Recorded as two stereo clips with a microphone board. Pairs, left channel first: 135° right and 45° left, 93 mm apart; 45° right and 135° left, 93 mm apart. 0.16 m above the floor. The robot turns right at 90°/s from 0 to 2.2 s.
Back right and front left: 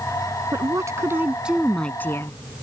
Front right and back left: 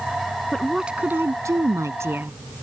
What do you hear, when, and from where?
0.5 s a woman speaking: 30° left; by 2.4 s 175° right